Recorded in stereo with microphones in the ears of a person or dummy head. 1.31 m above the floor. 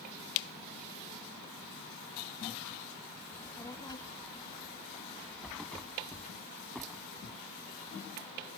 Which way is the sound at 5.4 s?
5° left (ahead or behind).